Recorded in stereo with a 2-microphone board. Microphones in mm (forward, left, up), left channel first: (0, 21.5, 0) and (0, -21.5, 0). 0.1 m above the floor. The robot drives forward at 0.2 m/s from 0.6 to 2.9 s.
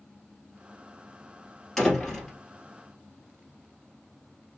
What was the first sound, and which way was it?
A door slam, 5° left (ahead or behind).